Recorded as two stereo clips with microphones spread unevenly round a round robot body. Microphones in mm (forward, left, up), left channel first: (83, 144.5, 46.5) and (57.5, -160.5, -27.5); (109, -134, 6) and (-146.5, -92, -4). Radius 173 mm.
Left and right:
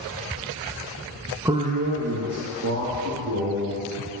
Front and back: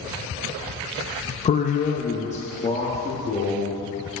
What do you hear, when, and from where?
1.4 s a man speaking: 50° right, 0.5 m; by 3.9 s 75° right, 2 m